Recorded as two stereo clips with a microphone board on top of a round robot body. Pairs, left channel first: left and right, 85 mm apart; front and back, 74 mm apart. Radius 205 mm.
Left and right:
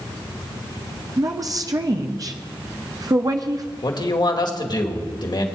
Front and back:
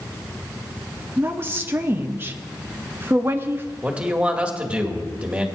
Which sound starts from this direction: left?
A man speaking, at 3.8 s.